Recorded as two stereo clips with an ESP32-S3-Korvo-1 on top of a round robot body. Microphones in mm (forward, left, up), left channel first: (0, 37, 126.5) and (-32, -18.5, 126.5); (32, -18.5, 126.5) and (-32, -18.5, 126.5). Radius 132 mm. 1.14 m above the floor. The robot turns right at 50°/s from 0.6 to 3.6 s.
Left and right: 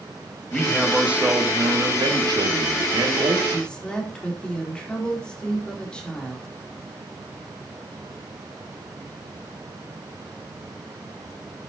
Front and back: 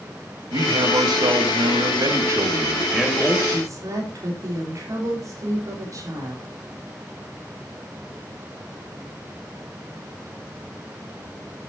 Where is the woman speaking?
130° left, 3 m; by 6.5 s 140° left, 3 m.